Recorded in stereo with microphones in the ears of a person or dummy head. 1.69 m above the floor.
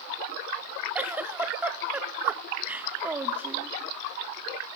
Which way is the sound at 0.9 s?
5° right (ahead or behind).